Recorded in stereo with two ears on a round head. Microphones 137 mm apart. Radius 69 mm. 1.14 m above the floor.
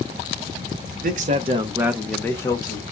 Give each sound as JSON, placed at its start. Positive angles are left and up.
{"t": 1.0, "sound": "a man speaking", "side_deg": -60, "distance_m": 0.8}